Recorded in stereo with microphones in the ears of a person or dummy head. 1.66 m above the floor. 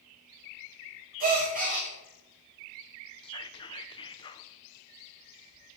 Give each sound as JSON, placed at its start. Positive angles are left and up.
{"t": 1.2, "sound": "a gasp", "side_deg": -45, "distance_m": 3.0}
{"t": 3.2, "sound": "whispering", "side_deg": 30, "distance_m": 1.0}